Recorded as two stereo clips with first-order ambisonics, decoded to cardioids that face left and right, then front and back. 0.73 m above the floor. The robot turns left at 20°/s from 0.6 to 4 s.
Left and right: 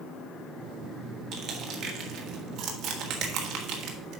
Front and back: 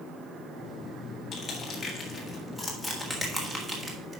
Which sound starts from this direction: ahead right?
Crushing, at 1.3 s.